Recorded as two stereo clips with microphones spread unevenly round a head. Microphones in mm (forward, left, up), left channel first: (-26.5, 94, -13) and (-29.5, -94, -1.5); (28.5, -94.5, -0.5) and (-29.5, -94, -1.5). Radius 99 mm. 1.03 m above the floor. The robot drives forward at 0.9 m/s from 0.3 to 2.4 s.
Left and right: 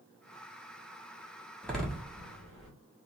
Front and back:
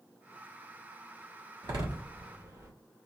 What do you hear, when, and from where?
1.6 s a door slam: 175° left, 1.4 m